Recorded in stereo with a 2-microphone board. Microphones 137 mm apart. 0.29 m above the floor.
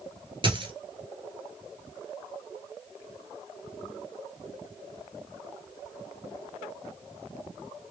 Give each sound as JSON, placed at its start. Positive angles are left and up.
{"t": 0.4, "sound": "a dropped coin", "side_deg": -40, "distance_m": 1.1}